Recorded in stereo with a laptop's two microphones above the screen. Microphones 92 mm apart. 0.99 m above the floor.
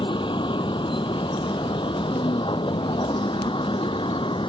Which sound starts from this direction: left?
A vehicle, at 0.0 s.